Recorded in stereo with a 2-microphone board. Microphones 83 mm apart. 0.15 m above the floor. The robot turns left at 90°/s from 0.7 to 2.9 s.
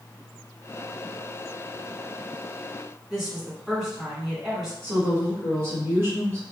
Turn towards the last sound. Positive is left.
turn(degrees=-30)  # may be behind; listen again after turning